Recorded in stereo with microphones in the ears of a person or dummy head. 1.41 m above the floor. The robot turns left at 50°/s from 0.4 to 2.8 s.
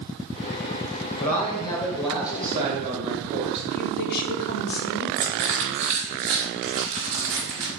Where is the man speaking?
45° left, 1.3 m; by 3.6 s 35° right, 1.3 m.